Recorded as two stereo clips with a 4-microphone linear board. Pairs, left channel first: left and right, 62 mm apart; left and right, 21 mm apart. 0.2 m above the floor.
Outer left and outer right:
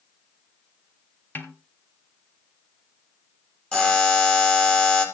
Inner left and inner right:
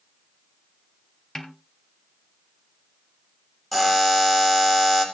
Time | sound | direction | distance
1.4 | a snare drum | 30° left (ahead or behind) | 1.7 m
3.7 | a buzzer | 15° left (ahead or behind) | 3.5 m